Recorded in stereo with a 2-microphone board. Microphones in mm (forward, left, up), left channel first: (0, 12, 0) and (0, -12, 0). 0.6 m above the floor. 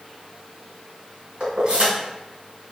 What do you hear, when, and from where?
1.4 s keys jangling: 45° right (ahead or behind), 1.5 m